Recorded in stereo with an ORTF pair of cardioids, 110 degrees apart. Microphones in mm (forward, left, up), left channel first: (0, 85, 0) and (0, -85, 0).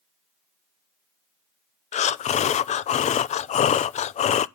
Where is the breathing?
45° left, 0.5 m.